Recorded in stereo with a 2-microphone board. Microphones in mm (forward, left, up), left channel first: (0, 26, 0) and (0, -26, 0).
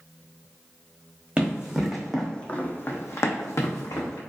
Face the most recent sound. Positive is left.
turn(degrees=85)